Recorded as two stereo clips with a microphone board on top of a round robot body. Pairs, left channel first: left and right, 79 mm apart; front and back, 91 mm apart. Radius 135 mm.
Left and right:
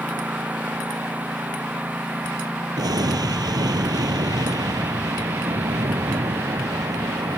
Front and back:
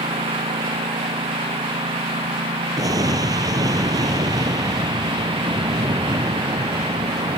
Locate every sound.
0.0 s a lawn mower: 160° right
2.8 s an explosion: 130° right